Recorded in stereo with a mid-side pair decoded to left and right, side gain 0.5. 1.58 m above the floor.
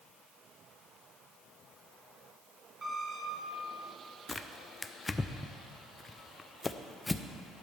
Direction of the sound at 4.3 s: 20° left.